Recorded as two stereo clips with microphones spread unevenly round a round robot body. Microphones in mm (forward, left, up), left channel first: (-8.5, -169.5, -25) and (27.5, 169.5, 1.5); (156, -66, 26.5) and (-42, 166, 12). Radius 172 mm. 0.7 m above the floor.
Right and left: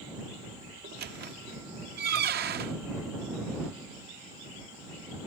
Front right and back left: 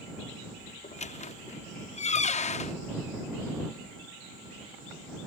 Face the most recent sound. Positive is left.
turn(degrees=20)